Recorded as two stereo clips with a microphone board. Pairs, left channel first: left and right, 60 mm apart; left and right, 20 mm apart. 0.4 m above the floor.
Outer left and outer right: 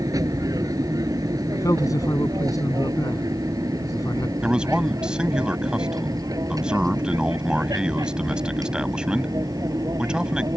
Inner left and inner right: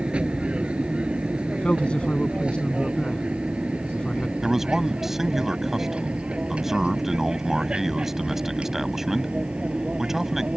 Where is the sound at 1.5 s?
75° left (ahead or behind).